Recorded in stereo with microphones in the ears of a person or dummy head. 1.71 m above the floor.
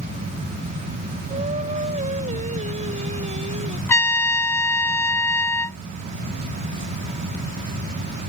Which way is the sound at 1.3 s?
30° right (ahead or behind).